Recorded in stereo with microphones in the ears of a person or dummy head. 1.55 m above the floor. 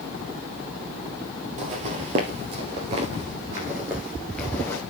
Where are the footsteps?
50° right (ahead or behind), 2.5 m; by 4.8 s 5° left (ahead or behind), 2 m.